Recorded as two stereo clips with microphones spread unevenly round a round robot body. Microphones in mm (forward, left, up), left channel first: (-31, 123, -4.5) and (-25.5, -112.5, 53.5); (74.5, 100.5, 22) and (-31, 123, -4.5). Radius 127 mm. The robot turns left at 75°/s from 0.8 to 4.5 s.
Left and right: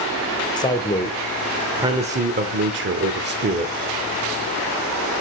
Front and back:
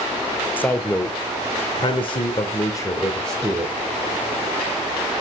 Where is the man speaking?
70° left, 0.9 m; by 3.7 s 150° right, 0.9 m.